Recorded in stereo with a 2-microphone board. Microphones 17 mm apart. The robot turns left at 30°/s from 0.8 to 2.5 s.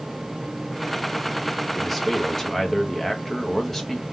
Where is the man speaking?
5° left (ahead or behind), 1.1 m; by 4.0 s 20° left (ahead or behind), 1.1 m.